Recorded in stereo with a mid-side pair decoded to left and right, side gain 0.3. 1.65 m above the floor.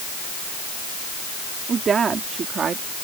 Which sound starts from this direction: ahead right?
A woman speaking, at 1.7 s.